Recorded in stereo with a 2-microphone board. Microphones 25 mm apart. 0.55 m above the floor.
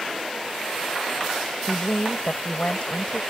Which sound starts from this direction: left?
A woman speaking, at 1.7 s.